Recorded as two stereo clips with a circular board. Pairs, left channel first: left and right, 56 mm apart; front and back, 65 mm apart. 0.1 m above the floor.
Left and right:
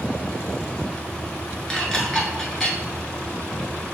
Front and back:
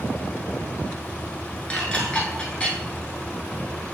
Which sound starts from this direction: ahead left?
Dishes clattering, at 1.7 s.